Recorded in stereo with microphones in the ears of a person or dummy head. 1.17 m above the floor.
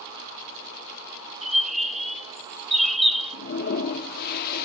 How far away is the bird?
About 0.6 m.